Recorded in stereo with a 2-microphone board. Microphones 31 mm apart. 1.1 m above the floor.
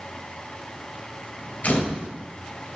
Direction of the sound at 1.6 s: 55° left (ahead or behind).